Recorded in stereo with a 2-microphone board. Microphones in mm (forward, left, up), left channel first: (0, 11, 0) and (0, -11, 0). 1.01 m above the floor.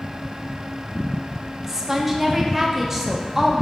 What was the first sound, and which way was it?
A woman speaking, 15° right (ahead or behind).